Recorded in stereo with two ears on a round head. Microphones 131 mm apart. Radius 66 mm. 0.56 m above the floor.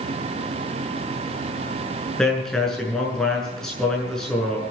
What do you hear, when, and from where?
2.2 s a man speaking: 5° left (ahead or behind), 7 m